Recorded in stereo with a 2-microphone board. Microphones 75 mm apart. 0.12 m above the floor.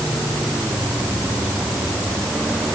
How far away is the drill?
I don't hear a drill.